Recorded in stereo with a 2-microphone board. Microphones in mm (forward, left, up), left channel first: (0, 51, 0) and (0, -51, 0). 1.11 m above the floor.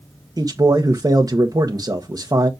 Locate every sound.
0.4 s a man speaking: 35° right (ahead or behind), 1.2 m